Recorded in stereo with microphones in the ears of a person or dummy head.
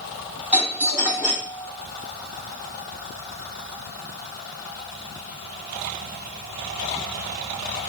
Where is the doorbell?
10° right (ahead or behind), 4.5 m.